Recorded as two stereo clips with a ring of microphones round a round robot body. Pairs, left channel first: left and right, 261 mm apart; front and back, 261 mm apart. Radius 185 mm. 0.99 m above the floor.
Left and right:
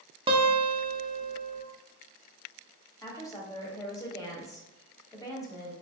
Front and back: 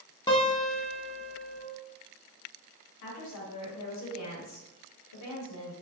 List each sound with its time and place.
0.3 s a guitar: 50° right, 0.5 m
3.0 s a woman speaking: 10° left, 1.4 m